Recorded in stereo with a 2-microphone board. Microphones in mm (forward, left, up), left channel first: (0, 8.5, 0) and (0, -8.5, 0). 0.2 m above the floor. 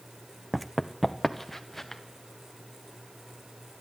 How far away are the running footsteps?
About 0.6 m.